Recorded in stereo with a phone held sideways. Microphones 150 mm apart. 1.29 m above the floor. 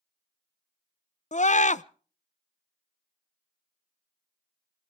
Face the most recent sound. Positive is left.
turn(degrees=55)  # may be behind; listen again after turning